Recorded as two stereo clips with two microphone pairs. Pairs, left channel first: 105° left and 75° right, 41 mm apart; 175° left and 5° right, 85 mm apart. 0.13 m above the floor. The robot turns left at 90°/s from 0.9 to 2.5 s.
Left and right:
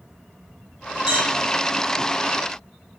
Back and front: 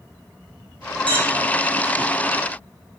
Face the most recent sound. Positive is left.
turn(degrees=-135)